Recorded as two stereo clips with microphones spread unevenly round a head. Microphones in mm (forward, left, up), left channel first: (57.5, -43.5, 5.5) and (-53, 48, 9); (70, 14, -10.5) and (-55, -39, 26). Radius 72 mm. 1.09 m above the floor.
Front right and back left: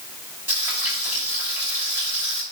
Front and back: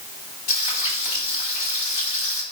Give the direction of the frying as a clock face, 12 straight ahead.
10 o'clock.